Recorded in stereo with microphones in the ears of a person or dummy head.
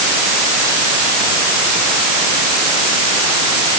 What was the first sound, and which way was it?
Only background noise.